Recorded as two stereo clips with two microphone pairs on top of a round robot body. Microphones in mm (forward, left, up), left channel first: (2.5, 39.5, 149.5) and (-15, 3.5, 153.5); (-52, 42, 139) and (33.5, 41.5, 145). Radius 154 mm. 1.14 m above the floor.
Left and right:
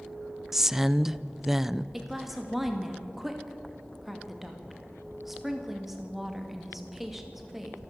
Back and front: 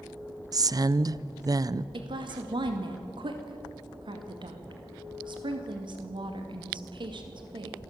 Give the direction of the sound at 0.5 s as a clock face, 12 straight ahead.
1 o'clock.